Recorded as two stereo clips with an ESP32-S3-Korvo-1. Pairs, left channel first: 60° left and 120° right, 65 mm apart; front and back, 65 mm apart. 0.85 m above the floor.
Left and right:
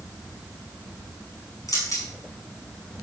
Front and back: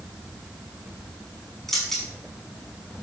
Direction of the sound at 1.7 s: 85° left.